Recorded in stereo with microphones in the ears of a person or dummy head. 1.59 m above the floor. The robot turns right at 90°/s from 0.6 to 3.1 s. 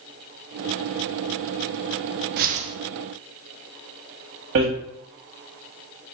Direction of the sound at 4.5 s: 60° right (ahead or behind).